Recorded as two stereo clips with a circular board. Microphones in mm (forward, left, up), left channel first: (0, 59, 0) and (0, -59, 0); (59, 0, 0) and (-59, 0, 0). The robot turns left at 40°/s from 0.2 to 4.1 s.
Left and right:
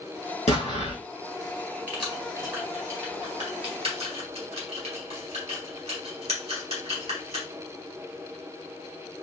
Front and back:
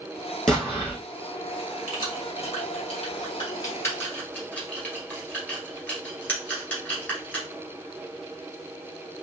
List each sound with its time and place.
0.5 s an explosion: 80° left, 3 m; by 1.0 s 60° left, 3 m
1.9 s keys jangling: 15° left, 1.9 m; by 7.5 s 75° right, 1.9 m